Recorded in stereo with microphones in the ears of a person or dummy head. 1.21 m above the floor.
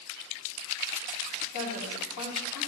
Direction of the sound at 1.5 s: 55° left (ahead or behind).